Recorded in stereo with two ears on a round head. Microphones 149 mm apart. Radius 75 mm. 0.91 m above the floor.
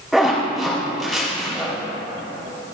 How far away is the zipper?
About 4.5 m.